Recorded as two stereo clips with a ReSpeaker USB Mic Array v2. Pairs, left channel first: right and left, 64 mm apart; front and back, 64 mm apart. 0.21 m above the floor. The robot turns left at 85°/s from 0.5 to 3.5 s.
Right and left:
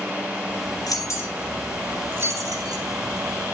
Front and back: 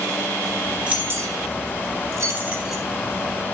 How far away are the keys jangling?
About 4 m.